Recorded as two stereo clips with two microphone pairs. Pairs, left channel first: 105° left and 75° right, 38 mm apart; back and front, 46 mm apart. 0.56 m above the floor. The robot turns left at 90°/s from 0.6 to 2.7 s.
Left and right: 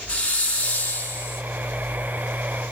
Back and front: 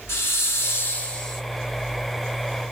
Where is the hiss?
165° left, 1.0 m; by 1.4 s 90° left, 1.0 m.